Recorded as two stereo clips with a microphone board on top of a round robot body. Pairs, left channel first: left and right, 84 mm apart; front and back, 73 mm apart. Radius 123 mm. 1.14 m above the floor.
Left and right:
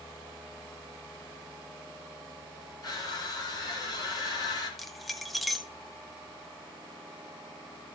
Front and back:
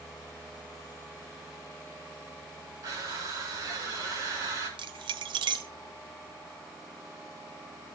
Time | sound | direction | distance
2.8 | crushing | 135° left | 4.5 m
4.8 | keys jangling | straight behind | 0.8 m